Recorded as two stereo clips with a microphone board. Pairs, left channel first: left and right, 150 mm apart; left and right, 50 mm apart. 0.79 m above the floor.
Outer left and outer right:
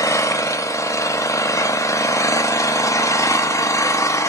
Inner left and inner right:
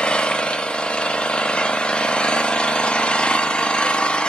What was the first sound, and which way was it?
An engine running, 20° left (ahead or behind).